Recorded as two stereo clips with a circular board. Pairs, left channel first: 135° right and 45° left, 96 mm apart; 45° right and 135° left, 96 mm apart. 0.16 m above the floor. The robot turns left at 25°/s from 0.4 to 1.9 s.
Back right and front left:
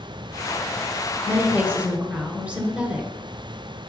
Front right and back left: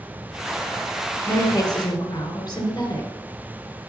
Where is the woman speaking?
15° right, 1.9 m; by 3.1 s 30° right, 1.9 m.